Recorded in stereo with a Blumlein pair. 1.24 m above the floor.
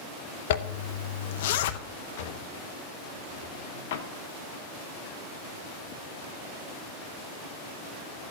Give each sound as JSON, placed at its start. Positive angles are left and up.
{"t": 0.5, "sound": "a zipper", "azimuth_deg": 55, "distance_m": 0.6}
{"t": 2.2, "sound": "a drawer", "azimuth_deg": 55, "distance_m": 0.9}